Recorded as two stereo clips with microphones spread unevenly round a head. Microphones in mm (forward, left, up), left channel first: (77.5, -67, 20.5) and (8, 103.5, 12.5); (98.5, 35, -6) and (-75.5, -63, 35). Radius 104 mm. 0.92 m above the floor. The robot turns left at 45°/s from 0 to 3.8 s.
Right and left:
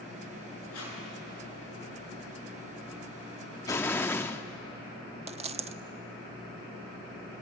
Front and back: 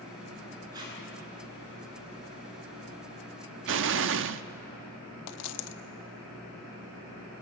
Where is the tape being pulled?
80° right, 8.5 m; by 1.0 s 90° right, 8.5 m.